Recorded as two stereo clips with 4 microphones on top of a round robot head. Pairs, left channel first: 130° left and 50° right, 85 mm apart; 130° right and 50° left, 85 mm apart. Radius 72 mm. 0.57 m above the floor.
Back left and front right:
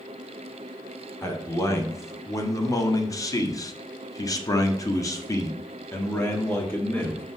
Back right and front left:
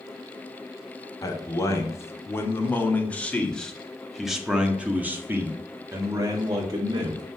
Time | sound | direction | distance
1.2 | a man speaking | straight behind | 2.5 m